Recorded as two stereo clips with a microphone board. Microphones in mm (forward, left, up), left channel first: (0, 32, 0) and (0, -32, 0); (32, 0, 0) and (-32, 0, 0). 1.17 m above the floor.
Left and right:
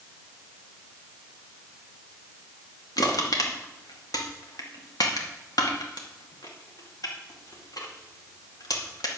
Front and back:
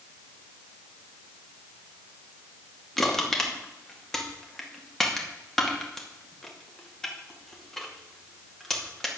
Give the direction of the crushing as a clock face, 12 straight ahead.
9 o'clock.